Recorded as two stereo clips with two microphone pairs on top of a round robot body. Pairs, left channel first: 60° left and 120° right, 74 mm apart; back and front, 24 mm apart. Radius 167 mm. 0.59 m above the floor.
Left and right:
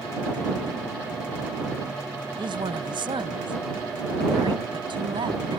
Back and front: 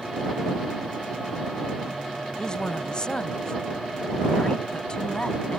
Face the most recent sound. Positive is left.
turn(degrees=-120)